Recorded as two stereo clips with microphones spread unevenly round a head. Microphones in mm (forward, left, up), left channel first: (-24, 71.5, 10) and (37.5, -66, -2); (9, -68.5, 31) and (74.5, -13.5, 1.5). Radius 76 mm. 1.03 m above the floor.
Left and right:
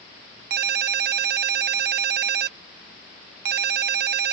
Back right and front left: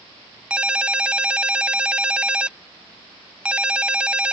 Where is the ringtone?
40° right.